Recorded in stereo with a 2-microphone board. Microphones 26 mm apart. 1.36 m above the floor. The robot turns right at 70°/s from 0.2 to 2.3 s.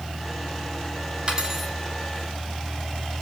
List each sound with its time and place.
1.3 s cutlery clinking: 35° right, 2 m; by 1.7 s 5° right, 2 m